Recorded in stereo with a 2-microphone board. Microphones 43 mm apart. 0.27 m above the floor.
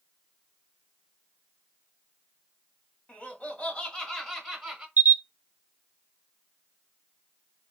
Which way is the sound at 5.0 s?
45° right (ahead or behind).